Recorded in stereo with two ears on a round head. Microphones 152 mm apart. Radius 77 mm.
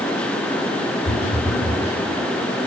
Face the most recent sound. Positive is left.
turn(degrees=70)  # may be behind; listen again after turning